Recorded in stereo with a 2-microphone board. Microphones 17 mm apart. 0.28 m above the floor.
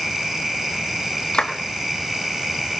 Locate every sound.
1.3 s a clap: 65° left (ahead or behind), 2 m